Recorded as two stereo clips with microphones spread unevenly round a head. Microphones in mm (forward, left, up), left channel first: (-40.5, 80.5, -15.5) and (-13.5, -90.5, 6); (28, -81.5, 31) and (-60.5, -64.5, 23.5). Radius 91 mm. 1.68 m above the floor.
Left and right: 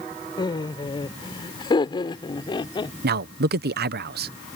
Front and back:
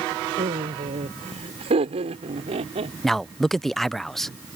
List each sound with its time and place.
0.4 s laughter: 165° left
3.0 s a man speaking: 95° right